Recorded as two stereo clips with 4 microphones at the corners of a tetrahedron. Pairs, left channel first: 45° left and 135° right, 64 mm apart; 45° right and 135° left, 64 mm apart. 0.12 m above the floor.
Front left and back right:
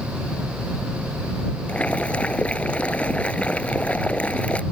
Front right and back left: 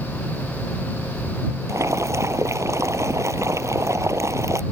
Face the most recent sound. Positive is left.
turn(degrees=110)